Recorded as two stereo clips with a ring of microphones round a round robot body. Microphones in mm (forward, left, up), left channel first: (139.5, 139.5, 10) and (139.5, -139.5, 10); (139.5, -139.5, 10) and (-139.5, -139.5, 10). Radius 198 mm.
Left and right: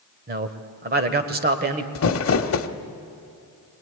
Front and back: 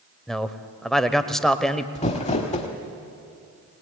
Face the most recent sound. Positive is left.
turn(degrees=65)